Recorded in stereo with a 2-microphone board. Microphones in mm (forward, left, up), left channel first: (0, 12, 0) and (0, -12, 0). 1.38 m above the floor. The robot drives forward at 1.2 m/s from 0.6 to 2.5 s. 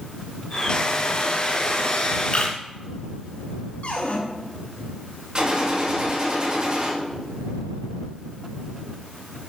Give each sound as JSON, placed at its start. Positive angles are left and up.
{"t": 2.3, "sound": "a camera shutter", "side_deg": 45, "distance_m": 2.5}
{"t": 3.8, "sound": "a cupboard door", "side_deg": 75, "distance_m": 3.0}
{"t": 5.3, "sound": "a gunshot", "side_deg": -35, "distance_m": 2.5}